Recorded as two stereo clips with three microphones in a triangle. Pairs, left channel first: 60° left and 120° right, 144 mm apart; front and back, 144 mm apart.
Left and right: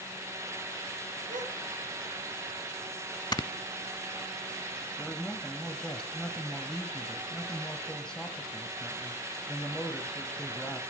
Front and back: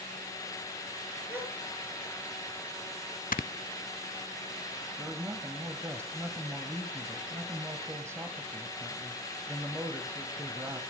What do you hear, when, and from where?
1.3 s a gasp: 105° right, 4.5 m
3.3 s snoring: straight ahead, 0.6 m
5.0 s a man speaking: 140° left, 1.4 m